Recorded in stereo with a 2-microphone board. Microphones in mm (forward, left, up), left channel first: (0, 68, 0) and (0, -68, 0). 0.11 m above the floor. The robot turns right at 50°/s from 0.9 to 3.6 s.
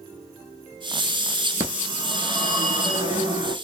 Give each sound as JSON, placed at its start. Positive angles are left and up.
{"t": 1.6, "sound": "a phone ringing", "azimuth_deg": -140, "distance_m": 0.9}